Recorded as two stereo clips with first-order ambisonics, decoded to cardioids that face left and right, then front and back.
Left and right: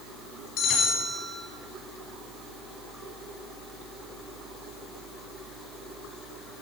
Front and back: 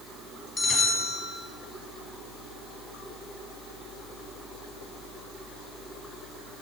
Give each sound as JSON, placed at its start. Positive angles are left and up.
{"t": 0.6, "sound": "a bell", "azimuth_deg": 65, "distance_m": 1.5}